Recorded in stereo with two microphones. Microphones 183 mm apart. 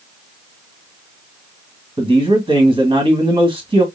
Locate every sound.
2.0 s a man speaking: 30° right (ahead or behind), 1.7 m